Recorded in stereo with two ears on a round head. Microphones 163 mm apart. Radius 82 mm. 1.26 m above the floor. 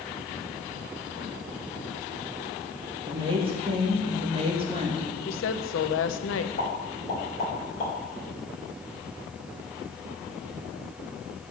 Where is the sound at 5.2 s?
75° left (ahead or behind), 0.8 m.